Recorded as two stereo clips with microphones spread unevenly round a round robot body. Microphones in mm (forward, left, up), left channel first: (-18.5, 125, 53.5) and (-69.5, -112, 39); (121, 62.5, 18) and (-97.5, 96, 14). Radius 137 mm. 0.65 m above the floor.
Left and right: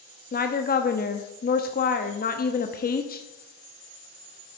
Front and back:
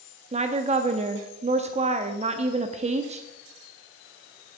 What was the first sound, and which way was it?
A woman speaking, 120° left.